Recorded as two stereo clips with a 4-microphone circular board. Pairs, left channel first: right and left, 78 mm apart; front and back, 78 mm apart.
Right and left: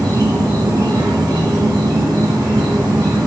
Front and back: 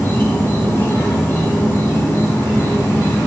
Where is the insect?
60° left, 4.5 m.